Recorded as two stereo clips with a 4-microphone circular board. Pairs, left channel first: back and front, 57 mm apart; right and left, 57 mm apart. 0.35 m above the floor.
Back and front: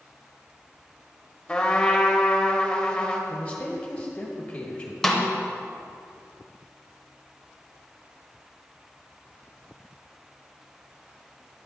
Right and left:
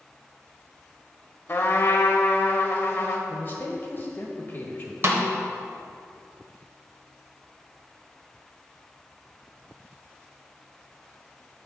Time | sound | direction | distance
1.5 | a trumpet | 115° right | 0.8 m
3.3 | a man speaking | 130° right | 1.2 m
5.0 | a snare drum | 100° left | 1.0 m